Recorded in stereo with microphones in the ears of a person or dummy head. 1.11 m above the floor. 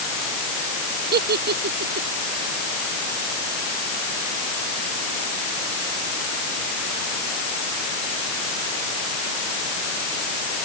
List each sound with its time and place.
1.1 s a giggle: 60° right (ahead or behind)